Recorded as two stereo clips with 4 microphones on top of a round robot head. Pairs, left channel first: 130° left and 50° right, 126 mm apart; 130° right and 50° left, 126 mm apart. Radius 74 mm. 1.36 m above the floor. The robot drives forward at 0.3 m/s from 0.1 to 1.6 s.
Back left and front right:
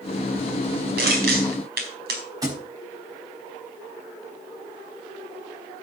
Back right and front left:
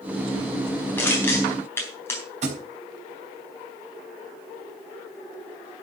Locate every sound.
1.0 s crushing: 55° right, 4 m
2.4 s a thud: 15° left, 4.5 m